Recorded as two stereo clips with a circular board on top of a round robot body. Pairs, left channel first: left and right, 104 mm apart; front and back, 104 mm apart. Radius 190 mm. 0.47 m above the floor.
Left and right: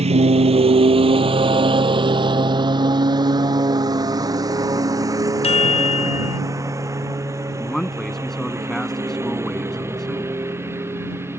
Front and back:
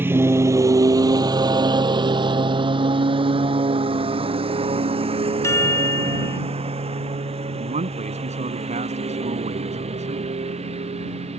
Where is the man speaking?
175° left.